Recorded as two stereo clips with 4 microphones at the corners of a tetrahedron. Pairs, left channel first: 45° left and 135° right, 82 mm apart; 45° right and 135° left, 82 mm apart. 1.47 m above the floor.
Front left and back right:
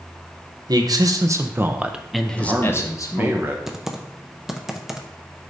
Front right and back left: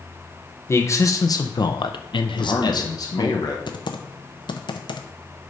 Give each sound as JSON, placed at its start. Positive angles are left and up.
{"t": 0.7, "sound": "a man speaking", "azimuth_deg": -100, "distance_m": 0.9}
{"t": 2.4, "sound": "a man speaking", "azimuth_deg": -75, "distance_m": 1.0}
{"t": 3.7, "sound": "typing on a keyboard", "azimuth_deg": -50, "distance_m": 0.6}